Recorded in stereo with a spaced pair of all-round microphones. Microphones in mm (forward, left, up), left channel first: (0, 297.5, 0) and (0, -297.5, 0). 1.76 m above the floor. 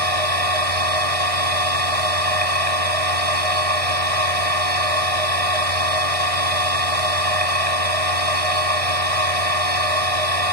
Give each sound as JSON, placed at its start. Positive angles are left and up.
{"t": 0.0, "sound": "a machine running", "side_deg": -65}